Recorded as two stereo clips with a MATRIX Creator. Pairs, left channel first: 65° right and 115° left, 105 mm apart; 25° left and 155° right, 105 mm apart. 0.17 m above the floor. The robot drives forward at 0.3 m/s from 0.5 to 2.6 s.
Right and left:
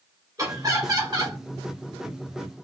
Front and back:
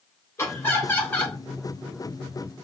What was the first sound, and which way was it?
Laughter, 75° left.